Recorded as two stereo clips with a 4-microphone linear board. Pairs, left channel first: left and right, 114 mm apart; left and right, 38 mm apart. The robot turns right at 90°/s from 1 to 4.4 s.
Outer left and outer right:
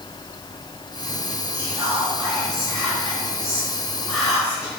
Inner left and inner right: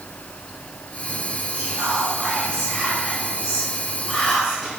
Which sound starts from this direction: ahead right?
Whispering, at 1.5 s.